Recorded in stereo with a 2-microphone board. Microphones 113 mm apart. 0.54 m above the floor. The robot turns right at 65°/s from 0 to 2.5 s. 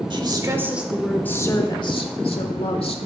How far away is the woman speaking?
About 1.4 m.